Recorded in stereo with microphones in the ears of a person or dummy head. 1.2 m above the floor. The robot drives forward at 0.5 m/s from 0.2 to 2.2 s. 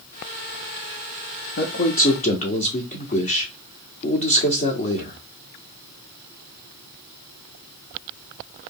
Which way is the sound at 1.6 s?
50° left (ahead or behind).